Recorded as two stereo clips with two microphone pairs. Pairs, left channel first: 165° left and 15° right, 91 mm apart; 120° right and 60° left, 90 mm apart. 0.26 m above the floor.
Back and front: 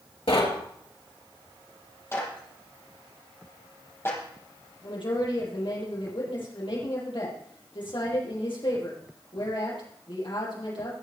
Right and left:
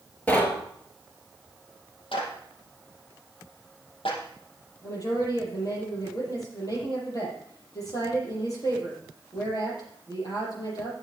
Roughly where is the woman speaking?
Behind.